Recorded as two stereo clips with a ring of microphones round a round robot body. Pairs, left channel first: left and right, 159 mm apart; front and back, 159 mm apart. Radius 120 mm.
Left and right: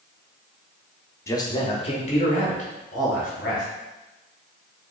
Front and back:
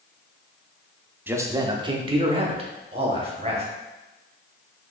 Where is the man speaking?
125° left, 0.7 m; by 3.6 s 130° left, 2 m.